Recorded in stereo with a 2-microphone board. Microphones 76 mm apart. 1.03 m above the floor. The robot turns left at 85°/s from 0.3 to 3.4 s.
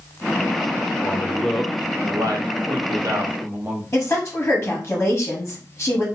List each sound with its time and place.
1.0 s a man speaking: 45° left, 0.8 m; by 3.8 s 160° right, 0.8 m
3.9 s a woman speaking: 30° left (ahead or behind), 0.9 m